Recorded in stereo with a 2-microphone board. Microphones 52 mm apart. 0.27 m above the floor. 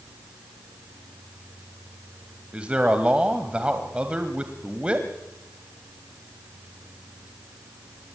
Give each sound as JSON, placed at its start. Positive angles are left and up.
{"t": 2.5, "sound": "a man speaking", "side_deg": -20, "distance_m": 1.7}